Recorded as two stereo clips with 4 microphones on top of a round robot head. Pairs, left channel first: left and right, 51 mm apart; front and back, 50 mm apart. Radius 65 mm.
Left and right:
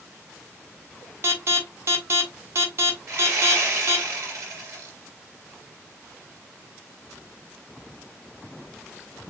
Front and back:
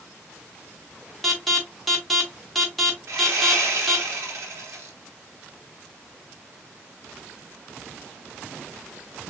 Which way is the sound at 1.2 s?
90° right.